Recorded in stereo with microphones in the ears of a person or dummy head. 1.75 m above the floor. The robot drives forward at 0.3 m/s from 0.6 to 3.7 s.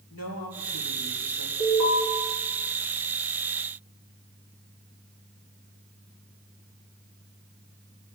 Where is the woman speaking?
75° left (ahead or behind), 3 m; by 1.5 s 80° left, 3 m.